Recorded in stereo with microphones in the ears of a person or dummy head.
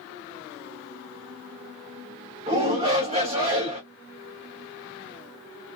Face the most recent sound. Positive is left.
turn(degrees=-30)  # may be behind; listen again after turning